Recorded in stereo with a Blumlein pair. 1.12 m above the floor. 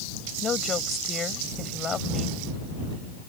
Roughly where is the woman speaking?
Ahead.